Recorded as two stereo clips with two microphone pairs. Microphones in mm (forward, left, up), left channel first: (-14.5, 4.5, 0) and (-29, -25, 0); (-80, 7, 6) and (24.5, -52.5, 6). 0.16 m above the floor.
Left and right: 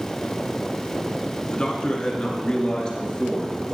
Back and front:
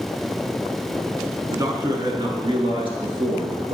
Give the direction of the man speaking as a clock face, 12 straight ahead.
11 o'clock.